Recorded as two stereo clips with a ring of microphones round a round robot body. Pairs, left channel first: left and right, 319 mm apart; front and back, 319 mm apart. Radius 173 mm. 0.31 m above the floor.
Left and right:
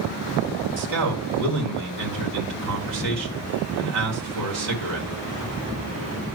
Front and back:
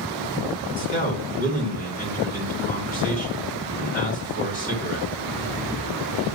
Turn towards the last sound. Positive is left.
turn(degrees=-65)